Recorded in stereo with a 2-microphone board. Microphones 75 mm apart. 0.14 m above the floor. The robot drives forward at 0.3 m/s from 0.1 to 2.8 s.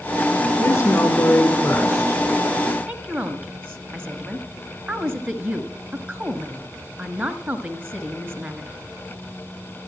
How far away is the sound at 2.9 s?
About 1.5 m.